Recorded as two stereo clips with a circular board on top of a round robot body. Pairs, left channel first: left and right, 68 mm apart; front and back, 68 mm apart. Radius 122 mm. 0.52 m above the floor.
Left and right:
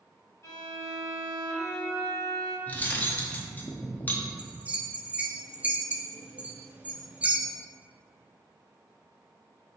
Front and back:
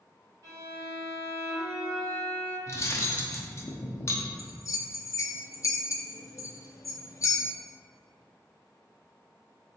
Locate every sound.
0.4 s a violin: 140° left, 1.1 m
2.7 s cutlery clinking: 35° left, 0.6 m
4.4 s a bell: 25° right, 0.5 m